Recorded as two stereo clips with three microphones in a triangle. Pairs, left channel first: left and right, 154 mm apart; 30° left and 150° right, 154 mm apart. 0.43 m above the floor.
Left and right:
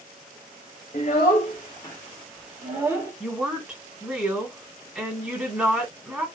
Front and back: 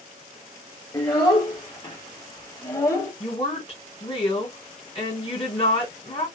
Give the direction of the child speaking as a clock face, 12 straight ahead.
9 o'clock.